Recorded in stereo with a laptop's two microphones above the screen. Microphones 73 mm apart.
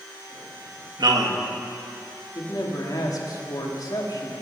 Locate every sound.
1.0 s a man speaking: 70° right (ahead or behind), 1.5 m
2.4 s a man speaking: 55° left (ahead or behind), 2.0 m